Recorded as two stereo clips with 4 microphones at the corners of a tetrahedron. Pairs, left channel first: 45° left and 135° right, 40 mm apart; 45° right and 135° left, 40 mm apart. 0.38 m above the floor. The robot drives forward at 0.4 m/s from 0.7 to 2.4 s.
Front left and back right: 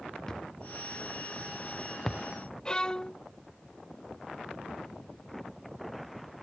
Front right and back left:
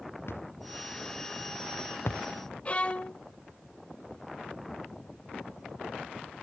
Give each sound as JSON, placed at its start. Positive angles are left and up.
{"t": 0.3, "sound": "a thud", "azimuth_deg": -30}
{"t": 2.6, "sound": "a violin", "azimuth_deg": -10}